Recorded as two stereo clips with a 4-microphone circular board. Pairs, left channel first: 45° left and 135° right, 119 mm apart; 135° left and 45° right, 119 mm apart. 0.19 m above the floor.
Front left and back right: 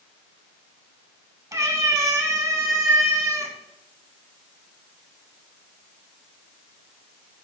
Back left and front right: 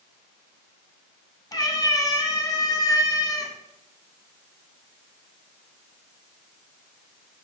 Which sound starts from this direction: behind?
A cat meowing, at 1.5 s.